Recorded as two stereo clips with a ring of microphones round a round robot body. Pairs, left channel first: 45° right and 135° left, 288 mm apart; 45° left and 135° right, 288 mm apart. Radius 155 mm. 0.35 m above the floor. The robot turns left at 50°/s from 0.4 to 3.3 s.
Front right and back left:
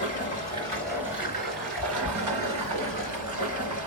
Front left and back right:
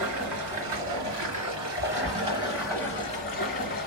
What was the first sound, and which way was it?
Running water, 110° right.